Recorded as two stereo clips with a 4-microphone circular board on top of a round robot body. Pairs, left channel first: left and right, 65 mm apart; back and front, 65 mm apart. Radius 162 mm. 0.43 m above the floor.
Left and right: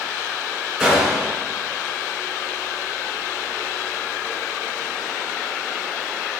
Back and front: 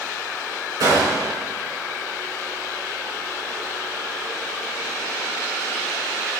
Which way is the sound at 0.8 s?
Straight ahead.